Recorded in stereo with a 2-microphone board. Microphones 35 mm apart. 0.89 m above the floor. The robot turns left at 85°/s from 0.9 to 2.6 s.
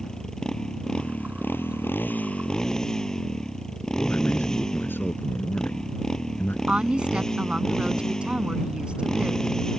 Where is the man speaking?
75° left (ahead or behind).